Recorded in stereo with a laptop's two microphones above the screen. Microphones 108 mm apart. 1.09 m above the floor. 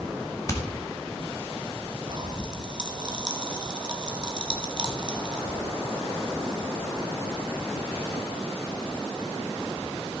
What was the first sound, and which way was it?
Hammering, 30° left (ahead or behind).